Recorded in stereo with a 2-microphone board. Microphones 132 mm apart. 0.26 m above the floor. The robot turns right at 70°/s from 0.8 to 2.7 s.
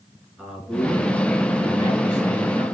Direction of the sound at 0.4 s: Straight behind.